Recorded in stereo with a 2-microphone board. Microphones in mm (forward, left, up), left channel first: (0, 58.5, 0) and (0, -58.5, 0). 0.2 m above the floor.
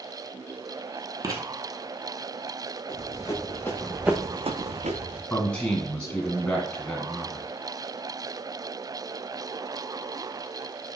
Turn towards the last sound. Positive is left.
turn(degrees=10)  # may be behind; listen again after turning